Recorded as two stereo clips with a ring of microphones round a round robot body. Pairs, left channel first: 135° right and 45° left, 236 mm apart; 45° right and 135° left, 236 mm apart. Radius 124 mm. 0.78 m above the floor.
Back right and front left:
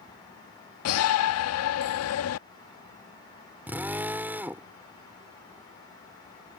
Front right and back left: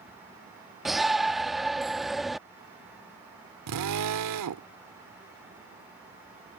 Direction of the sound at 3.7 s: 130° left.